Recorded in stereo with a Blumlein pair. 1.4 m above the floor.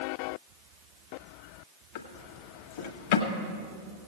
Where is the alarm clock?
I don't hear an alarm clock.